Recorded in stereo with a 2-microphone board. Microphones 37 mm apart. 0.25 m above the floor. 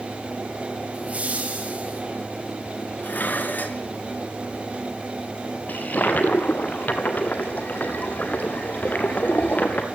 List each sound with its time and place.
0.9 s laughter: 40° right (ahead or behind), 6 m
3.0 s dishes clattering: 55° left (ahead or behind), 2 m
5.7 s a toilet flushing: 50° left (ahead or behind), 2 m